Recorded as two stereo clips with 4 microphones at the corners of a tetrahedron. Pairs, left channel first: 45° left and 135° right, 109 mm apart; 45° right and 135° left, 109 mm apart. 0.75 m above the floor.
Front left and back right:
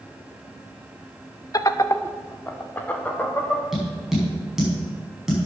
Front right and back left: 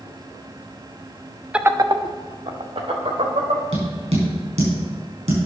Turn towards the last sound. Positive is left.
turn(degrees=140)